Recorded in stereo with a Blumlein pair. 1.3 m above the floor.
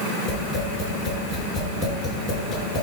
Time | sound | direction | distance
0.3 | tapping | 10° left | 6.5 m